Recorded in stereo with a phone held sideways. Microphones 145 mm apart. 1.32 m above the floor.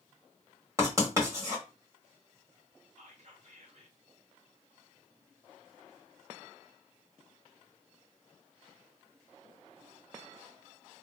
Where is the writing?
20° right (ahead or behind), 1.6 m.